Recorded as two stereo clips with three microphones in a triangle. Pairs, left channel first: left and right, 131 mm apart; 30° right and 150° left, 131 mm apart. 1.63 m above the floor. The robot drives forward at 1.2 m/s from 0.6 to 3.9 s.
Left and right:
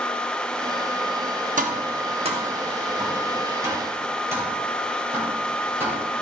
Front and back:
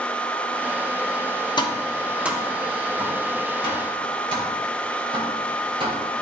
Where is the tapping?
85° right, 0.9 m; by 6.0 s 160° right, 3 m.